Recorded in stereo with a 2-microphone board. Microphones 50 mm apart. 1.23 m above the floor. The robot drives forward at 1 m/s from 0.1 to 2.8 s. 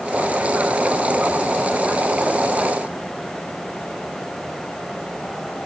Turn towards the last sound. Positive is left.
No sound to turn to.